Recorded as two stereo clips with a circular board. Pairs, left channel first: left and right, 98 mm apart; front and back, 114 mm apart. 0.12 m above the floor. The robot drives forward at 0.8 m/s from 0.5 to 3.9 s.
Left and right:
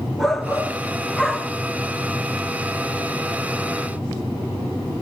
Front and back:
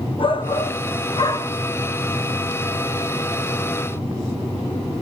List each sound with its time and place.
0.2 s a shout: straight ahead, 1.9 m